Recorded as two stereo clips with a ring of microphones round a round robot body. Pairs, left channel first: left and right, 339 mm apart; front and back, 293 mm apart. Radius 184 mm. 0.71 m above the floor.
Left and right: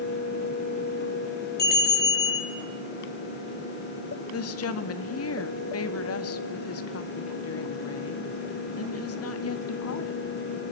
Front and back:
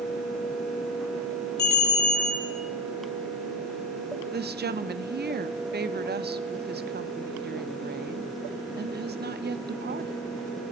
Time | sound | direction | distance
1.6 | a bell | 25° left | 5.5 m
4.3 | a woman speaking | 130° left | 1.5 m